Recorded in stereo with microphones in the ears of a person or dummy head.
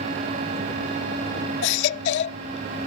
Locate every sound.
1.6 s a baby crying: 65° left (ahead or behind)